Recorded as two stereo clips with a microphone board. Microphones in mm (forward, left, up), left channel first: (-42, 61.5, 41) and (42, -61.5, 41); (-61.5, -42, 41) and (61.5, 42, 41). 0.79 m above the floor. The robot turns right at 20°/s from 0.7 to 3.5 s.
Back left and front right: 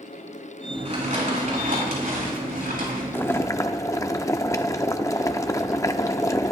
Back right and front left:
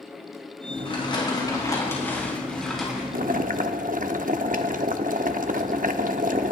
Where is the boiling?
50° left, 0.7 m; by 6.5 s 55° left, 0.7 m.